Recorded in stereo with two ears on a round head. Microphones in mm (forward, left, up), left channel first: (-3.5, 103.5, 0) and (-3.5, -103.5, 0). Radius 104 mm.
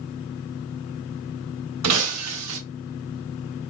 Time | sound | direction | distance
1.8 | breaking glass | 75° right (ahead or behind) | 0.9 m